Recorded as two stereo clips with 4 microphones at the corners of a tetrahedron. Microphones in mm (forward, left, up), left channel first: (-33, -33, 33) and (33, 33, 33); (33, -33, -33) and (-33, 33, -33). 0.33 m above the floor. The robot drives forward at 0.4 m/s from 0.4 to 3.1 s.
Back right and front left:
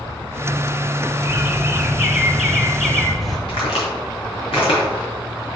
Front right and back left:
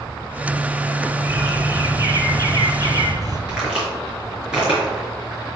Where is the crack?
145° right, 4.5 m.